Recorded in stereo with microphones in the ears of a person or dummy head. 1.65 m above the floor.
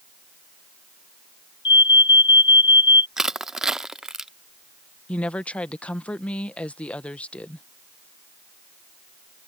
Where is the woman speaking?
10° left (ahead or behind).